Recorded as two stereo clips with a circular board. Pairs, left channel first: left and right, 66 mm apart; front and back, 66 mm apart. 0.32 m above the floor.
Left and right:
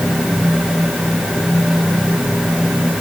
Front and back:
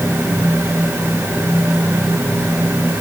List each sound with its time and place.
Only background noise.